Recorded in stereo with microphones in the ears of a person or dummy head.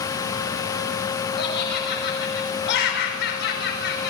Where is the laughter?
55° left (ahead or behind), 5.5 m.